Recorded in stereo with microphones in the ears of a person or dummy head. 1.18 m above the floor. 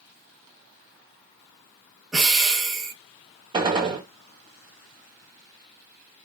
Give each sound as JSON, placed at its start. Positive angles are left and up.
{"t": 2.1, "sound": "breathing", "side_deg": -5, "distance_m": 1.4}
{"t": 3.5, "sound": "a gunshot", "side_deg": -25, "distance_m": 1.0}